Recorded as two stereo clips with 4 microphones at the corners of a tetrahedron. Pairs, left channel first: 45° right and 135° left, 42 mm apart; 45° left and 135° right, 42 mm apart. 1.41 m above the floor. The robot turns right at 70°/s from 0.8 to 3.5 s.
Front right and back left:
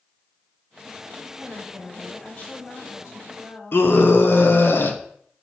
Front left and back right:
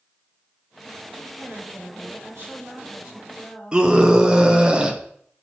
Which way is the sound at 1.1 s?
160° left.